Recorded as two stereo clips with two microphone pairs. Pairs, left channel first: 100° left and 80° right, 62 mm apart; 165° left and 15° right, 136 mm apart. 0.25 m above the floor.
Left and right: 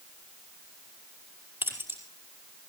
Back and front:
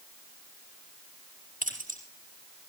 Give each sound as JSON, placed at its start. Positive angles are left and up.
{"t": 1.6, "sound": "keys jangling", "azimuth_deg": -20, "distance_m": 5.0}